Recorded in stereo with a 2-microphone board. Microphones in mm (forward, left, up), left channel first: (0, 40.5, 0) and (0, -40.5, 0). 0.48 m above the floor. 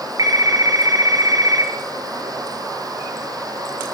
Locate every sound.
0.2 s a phone ringing: 55° right (ahead or behind), 5 m